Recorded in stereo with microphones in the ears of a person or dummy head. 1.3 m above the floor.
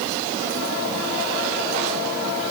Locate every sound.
Only background noise.